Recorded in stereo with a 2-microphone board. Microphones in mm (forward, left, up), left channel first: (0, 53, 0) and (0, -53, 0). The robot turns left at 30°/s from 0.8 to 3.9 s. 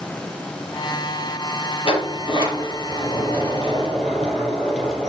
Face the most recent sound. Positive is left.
turn(degrees=5)